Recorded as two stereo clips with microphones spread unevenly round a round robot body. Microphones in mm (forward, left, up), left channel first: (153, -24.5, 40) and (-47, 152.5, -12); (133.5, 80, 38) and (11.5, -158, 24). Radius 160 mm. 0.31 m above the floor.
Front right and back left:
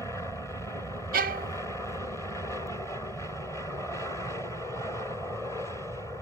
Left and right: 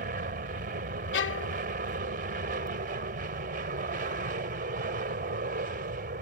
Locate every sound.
0.0 s an aircraft: 130° right
1.1 s a violin: 105° left